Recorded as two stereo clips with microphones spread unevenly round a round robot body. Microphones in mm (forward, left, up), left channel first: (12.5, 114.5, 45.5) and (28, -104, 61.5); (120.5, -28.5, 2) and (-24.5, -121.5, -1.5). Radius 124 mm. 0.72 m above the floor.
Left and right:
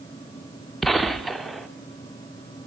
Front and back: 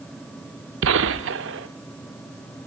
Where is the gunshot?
175° right, 0.9 m.